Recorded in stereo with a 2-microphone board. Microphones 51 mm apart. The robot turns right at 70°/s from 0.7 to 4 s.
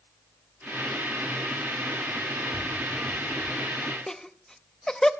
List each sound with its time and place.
2.5 s tapping: 5° left (ahead or behind), 7 m; by 3.5 s 65° right (ahead or behind), 7 m
4.1 s laughter: 10° left (ahead or behind), 0.6 m